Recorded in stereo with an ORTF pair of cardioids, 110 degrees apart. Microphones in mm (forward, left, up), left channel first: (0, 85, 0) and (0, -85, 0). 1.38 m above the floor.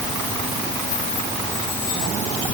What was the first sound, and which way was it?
Only background noise.